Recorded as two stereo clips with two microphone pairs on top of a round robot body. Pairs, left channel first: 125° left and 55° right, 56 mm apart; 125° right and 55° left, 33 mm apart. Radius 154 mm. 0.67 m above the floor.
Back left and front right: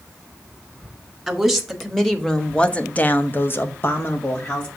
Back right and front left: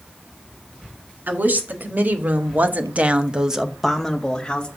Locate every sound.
1.3 s a woman speaking: 35° left, 2 m; by 4.7 s 170° left, 1.6 m